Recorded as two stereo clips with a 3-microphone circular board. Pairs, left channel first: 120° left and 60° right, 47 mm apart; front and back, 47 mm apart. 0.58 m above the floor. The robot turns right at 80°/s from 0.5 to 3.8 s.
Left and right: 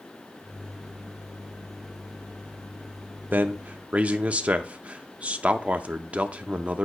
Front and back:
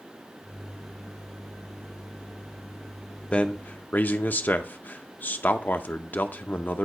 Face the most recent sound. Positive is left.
turn(degrees=-10)